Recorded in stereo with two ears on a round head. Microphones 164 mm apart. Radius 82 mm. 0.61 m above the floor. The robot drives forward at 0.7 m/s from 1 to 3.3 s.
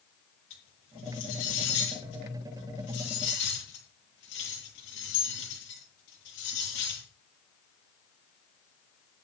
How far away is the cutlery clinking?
About 9.5 m.